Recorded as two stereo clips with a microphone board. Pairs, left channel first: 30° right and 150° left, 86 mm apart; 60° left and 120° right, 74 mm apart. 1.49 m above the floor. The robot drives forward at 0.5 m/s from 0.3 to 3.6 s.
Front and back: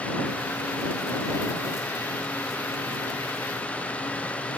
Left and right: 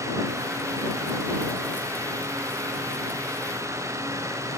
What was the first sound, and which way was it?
Only background noise.